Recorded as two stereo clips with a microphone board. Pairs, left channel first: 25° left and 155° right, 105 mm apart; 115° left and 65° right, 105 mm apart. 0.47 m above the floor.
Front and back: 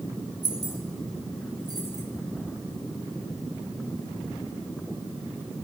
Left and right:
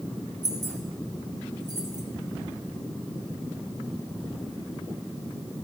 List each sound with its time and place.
0.4 s keys jangling: 110° right, 1.6 m